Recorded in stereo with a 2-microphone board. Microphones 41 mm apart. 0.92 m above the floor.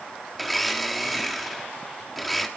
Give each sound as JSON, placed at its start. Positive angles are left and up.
{"t": 0.3, "sound": "a blender", "side_deg": 0, "distance_m": 1.2}